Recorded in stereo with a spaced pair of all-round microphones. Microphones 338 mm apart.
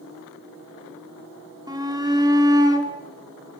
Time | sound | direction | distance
1.7 | a shout | 10° right (ahead or behind) | 3 m